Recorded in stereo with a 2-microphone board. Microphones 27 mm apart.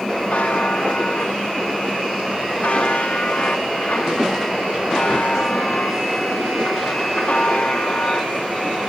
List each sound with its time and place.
0.3 s a buzzer: 50° left (ahead or behind), 3 m